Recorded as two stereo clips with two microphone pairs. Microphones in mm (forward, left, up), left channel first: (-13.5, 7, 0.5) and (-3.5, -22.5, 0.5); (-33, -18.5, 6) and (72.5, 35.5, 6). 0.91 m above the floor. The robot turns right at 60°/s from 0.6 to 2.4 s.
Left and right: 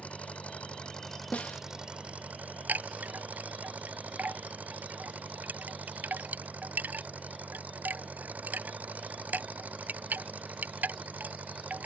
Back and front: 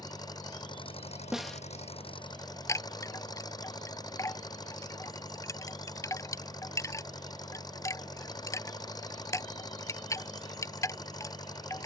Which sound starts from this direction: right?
A chime, at 2.7 s.